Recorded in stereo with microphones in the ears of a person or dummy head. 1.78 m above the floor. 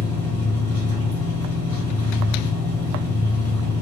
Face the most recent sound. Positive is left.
turn(degrees=-15)  # may be behind; listen again after turning